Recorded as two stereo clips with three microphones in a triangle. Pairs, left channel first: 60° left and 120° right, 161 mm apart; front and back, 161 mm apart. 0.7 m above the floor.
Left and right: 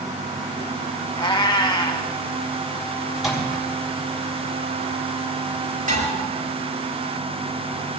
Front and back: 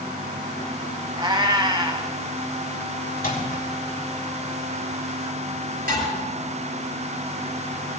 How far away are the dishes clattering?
About 8 m.